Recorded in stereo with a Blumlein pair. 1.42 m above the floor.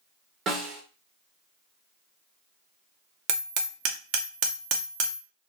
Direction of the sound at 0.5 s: 25° right.